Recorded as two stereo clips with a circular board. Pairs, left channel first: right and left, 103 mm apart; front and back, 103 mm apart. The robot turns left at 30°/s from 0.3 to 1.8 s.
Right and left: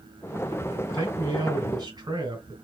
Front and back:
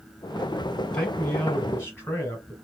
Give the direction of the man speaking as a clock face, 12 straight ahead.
9 o'clock.